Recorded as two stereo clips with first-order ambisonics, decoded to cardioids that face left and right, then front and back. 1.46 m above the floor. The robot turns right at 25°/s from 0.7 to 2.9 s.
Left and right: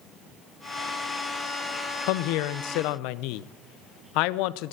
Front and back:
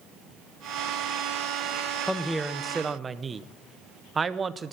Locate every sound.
2.1 s a woman speaking: 85° left, 0.6 m; by 4.7 s 105° left, 0.6 m